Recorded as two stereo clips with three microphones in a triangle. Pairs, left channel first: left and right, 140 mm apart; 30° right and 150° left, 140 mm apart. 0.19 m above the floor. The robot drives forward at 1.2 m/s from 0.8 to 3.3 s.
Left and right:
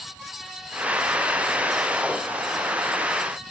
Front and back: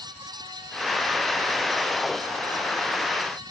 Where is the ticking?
No ticking in this recording.